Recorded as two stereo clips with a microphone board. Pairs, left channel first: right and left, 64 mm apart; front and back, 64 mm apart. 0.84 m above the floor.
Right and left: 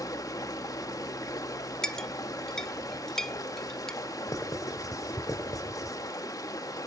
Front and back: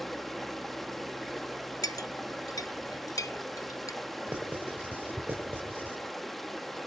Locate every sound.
0.0 s running water: 85° right, 1.2 m
1.8 s a clink: 10° right, 0.7 m
4.3 s writing: 115° right, 5 m